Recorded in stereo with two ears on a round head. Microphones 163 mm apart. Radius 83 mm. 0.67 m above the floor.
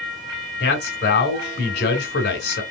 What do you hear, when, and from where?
0.6 s a man speaking: 55° left (ahead or behind), 2.5 m